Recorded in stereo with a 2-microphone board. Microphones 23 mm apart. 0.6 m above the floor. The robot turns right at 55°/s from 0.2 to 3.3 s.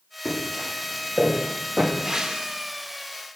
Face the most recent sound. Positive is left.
turn(degrees=-90)